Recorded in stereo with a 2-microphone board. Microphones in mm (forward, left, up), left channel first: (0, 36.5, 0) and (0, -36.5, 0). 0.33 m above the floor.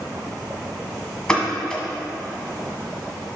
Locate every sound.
1.3 s a pop: 10° left (ahead or behind), 1.3 m